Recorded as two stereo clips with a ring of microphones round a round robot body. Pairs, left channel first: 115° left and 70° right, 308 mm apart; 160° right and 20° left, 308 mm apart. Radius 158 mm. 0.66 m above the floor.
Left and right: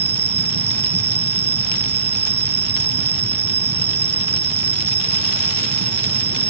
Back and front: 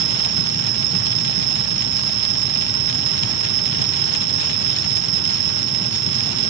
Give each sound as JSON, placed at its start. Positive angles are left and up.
{"t": 0.0, "sound": "an insect", "azimuth_deg": 5}